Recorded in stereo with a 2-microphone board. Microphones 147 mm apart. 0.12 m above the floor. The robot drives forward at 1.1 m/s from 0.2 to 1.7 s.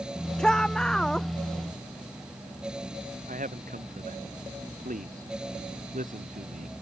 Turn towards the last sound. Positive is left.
turn(degrees=-65)  # may be behind; listen again after turning